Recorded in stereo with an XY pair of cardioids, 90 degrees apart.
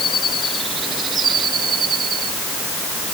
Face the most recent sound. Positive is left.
No sound to turn to.